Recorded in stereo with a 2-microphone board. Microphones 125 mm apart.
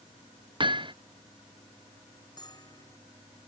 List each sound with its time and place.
0.6 s hammering: 40° right (ahead or behind)
2.4 s a bell: 35° left (ahead or behind)